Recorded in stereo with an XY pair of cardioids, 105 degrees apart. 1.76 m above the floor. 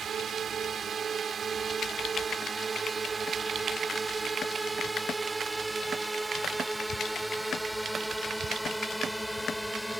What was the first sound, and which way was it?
A drone, 50° right.